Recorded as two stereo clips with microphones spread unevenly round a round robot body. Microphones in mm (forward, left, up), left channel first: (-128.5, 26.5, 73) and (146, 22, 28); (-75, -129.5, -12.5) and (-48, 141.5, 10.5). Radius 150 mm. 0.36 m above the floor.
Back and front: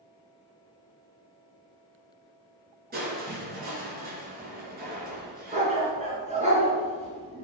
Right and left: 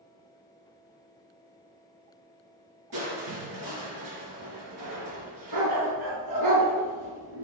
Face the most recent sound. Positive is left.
turn(degrees=65)